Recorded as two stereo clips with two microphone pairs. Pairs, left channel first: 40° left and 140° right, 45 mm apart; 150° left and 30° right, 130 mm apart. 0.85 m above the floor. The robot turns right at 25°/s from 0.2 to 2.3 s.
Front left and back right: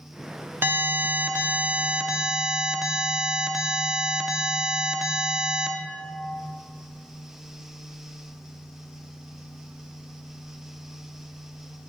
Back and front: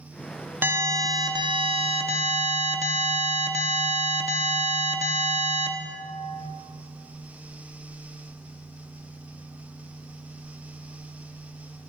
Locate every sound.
0.6 s an alarm: 110° right, 0.7 m; by 5.7 s 65° right, 0.7 m